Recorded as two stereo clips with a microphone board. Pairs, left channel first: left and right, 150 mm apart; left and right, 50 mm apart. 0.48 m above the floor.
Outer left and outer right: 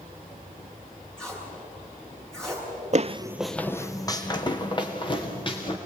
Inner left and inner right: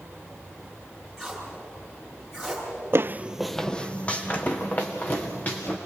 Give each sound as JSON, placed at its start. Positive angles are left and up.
{"t": 1.2, "sound": "tape being pulled", "side_deg": 5, "distance_m": 7.0}
{"t": 2.9, "sound": "footsteps", "side_deg": -55, "distance_m": 0.7}